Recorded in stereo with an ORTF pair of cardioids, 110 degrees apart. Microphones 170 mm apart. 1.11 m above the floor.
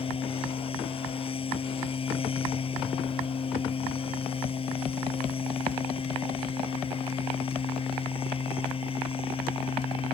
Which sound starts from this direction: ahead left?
A machine running, at 0.0 s.